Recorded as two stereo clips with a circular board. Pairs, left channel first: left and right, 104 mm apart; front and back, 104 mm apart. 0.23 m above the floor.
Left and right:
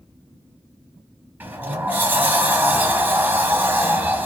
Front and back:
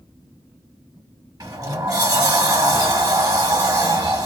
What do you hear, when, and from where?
1.4 s a sliding door: 150° right, 0.9 m